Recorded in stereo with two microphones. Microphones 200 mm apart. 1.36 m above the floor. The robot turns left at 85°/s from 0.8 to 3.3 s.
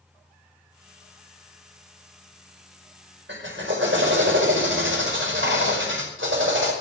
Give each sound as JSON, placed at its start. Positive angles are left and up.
{"t": 3.3, "sound": "a drill", "side_deg": -75, "distance_m": 5.0}